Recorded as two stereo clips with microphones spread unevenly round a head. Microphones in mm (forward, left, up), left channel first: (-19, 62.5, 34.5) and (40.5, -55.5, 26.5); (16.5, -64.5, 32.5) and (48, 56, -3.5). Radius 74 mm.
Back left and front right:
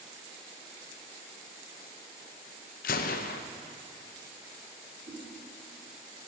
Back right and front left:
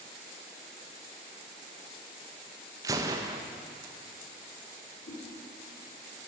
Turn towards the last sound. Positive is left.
turn(degrees=-120)